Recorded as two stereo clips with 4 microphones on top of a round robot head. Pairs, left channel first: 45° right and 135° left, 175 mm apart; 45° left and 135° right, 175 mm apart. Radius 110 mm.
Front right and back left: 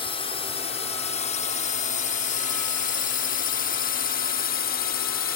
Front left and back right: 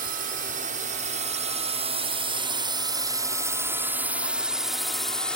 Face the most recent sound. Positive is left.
turn(degrees=-35)